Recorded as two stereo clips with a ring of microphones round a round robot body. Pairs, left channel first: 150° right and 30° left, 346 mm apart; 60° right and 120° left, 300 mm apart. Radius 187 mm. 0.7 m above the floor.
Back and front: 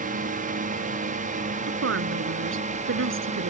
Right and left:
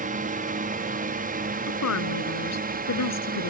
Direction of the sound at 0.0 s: 80° left.